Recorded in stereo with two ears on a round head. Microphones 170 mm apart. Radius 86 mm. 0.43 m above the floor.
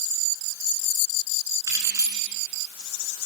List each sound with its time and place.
1.7 s keys jangling: 15° right (ahead or behind), 3.5 m